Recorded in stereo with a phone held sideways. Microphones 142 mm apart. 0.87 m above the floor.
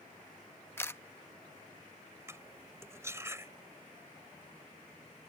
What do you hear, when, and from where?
0.8 s a camera shutter: 15° left (ahead or behind)
2.3 s cutlery clinking: 20° right (ahead or behind)